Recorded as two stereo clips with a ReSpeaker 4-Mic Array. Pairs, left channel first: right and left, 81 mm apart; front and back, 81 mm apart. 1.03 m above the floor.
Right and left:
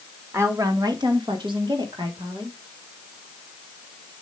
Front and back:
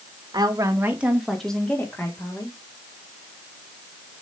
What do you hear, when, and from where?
0.3 s a woman speaking: 145° left, 1.7 m; by 2.6 s 55° left, 3 m